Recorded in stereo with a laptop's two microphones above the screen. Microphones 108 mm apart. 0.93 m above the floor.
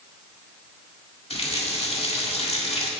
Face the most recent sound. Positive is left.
turn(degrees=65)  # may be behind; listen again after turning